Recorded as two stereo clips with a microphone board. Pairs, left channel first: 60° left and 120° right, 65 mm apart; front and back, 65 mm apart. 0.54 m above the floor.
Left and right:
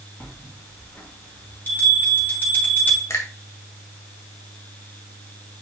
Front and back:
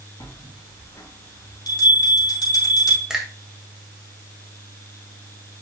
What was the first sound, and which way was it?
A bell, straight ahead.